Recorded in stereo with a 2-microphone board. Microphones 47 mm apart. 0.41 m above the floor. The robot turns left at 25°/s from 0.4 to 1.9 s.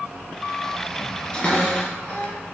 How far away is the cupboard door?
About 2.5 m.